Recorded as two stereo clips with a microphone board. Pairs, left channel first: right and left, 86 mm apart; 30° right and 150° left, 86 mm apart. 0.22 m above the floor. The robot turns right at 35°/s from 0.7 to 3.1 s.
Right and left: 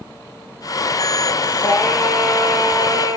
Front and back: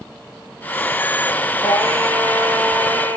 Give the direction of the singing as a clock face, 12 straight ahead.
1 o'clock.